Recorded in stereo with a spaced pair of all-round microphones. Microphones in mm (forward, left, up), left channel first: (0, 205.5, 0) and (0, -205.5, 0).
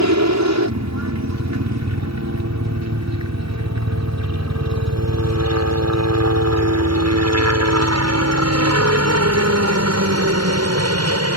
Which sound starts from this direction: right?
A helicopter, at 0.0 s.